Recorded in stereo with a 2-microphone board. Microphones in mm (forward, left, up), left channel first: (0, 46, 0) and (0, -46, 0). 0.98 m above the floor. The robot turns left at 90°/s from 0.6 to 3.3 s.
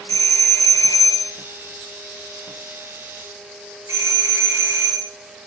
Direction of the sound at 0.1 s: 35° left (ahead or behind).